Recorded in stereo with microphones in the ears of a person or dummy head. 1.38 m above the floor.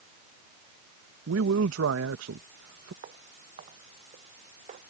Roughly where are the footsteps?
Right.